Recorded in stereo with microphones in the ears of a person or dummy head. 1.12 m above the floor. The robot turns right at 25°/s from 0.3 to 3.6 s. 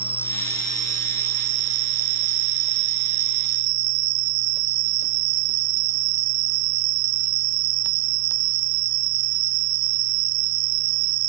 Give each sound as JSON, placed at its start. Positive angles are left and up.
{"t": 0.0, "sound": "an insect", "azimuth_deg": -155}